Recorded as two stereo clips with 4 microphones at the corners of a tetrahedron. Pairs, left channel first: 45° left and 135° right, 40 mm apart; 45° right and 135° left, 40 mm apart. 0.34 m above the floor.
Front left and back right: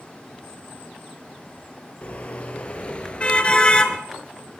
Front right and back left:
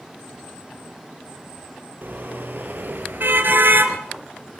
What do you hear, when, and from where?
2.0 s a car horn: 100° left, 4.5 m; by 4.0 s 110° left, 2.5 m